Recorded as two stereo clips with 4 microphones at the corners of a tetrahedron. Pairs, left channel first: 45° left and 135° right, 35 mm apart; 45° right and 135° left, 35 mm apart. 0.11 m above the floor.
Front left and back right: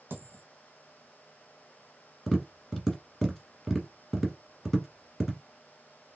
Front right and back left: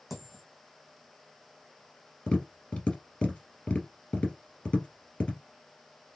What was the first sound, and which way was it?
A dropped coin, 140° right.